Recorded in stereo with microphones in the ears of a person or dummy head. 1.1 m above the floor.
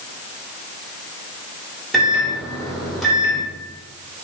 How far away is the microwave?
About 2.5 m.